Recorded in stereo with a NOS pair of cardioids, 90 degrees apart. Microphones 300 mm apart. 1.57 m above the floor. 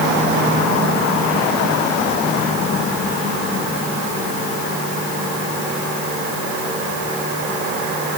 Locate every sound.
Only background noise.